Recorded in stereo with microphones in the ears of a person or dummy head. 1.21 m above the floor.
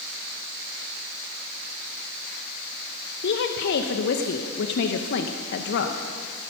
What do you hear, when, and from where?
3.2 s a woman speaking: 60° left (ahead or behind), 0.9 m